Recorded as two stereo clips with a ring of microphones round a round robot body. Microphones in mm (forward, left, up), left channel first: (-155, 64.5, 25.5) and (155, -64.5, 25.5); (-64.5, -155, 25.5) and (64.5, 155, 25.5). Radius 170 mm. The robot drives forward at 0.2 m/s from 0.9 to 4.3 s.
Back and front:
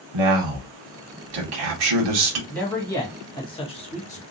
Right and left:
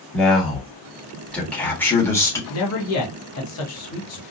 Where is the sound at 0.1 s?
25° right, 1.2 m; by 2.4 s 30° right, 0.9 m.